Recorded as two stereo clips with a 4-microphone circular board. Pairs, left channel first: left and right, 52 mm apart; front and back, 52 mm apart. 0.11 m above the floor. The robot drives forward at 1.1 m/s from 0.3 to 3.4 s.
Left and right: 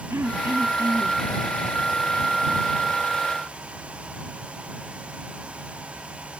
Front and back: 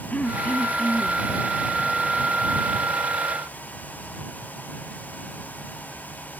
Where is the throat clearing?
60° right; by 1.2 s 70° right.